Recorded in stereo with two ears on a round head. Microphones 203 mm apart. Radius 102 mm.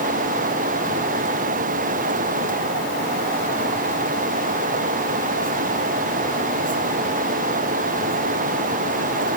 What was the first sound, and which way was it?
Only background noise.